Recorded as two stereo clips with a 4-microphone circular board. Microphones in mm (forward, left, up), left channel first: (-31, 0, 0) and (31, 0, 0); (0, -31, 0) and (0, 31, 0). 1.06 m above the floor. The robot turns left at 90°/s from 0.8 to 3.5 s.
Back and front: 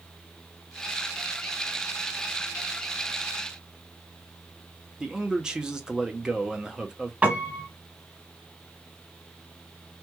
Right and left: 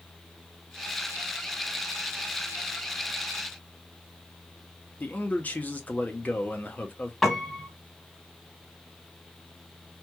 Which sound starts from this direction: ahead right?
A man speaking, at 5.0 s.